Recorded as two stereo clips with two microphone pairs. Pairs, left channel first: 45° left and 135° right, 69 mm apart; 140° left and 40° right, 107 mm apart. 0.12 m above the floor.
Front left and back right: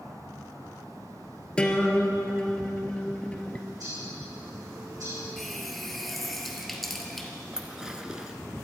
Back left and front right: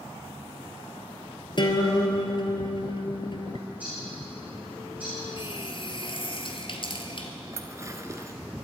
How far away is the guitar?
About 1.5 m.